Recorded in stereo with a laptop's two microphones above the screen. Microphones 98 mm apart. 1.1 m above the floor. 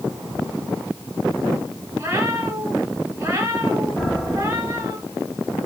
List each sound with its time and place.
2.0 s a cat meowing: 30° right (ahead or behind), 3 m
4.0 s a piano: 10° left (ahead or behind), 2.5 m